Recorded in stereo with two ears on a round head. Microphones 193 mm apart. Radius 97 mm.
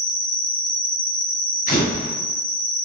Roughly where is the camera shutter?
Left.